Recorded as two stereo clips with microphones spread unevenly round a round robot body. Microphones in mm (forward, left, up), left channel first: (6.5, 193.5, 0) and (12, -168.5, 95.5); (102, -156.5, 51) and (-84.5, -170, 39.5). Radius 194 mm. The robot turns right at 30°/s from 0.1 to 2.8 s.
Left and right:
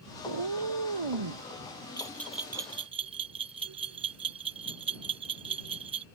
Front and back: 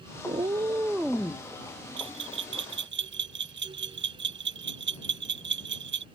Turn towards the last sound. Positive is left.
turn(degrees=-170)